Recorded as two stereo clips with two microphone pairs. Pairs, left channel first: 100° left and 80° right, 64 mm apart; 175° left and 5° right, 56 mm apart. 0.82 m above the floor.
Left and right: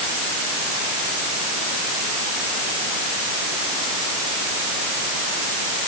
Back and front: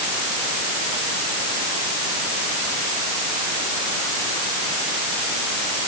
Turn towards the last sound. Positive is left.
No sound to turn to.